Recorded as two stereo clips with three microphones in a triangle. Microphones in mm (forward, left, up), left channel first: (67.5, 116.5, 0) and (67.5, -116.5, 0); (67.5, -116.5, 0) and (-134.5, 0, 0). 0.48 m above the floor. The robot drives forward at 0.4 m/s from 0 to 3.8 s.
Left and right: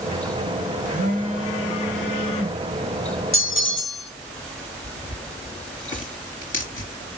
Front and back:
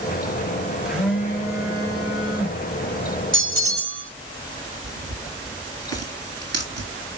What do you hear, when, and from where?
0.8 s a phone buzzing: 125° right, 1.5 m; by 2.6 s 145° right, 1.9 m
3.3 s a bell: 115° left, 0.7 m; by 4.1 s 130° left, 0.8 m
4.8 s tearing paper: 145° left, 3 m